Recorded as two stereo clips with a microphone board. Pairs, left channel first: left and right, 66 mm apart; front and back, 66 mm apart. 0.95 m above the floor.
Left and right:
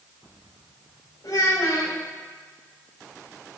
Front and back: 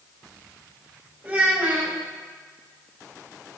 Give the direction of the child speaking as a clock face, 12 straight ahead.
8 o'clock.